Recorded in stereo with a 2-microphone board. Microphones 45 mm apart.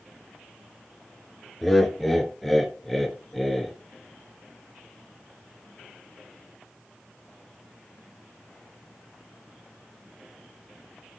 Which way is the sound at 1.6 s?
5° left (ahead or behind).